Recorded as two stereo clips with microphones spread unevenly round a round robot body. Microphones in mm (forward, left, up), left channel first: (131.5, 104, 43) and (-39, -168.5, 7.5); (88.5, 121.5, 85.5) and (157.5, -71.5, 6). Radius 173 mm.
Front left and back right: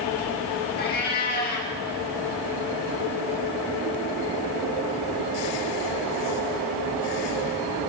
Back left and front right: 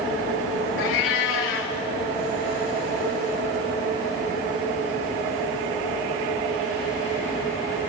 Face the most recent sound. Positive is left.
turn(degrees=120)